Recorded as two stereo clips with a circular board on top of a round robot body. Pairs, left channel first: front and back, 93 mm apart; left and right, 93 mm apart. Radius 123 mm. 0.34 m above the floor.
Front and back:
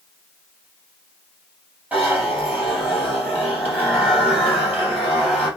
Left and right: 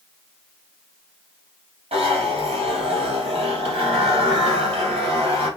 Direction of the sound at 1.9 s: 105° right.